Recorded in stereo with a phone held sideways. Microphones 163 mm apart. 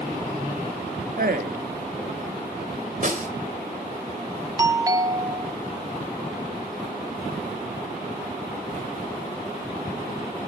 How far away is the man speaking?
About 1.2 m.